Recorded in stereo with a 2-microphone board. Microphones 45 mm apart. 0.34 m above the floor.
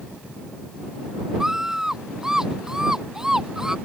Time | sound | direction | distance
1.4 | a scream | 10° right (ahead or behind) | ?